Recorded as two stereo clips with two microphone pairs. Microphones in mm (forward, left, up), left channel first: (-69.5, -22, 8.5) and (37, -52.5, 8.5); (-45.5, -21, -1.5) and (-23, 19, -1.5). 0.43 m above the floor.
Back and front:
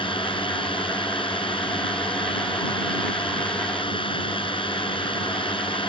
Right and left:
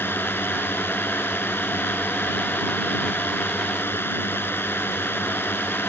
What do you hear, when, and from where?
0.0 s a drone: 155° right